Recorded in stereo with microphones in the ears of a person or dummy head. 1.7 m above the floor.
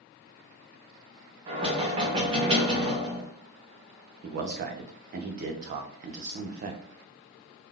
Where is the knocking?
35° right (ahead or behind), 0.9 m.